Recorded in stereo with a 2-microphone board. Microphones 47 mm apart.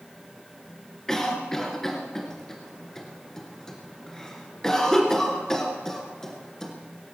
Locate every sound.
1.1 s a cough: 10° left (ahead or behind), 2.5 m